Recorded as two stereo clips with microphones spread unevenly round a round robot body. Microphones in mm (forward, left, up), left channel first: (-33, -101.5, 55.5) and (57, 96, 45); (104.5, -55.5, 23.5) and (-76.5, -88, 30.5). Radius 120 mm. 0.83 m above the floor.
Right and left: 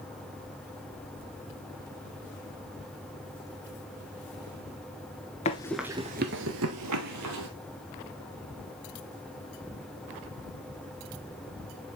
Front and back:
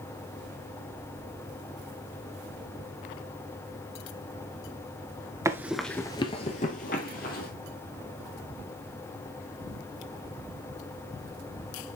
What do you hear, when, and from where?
5.5 s running footsteps: 120° right, 0.8 m; by 7.5 s 65° left, 2.0 m